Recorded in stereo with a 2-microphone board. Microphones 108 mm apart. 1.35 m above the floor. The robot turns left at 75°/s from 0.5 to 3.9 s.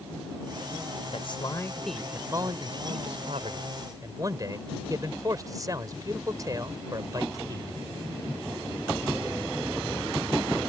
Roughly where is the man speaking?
Ahead left.